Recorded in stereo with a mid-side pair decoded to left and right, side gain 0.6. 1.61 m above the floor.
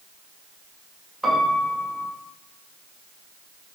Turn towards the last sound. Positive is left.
turn(degrees=-10)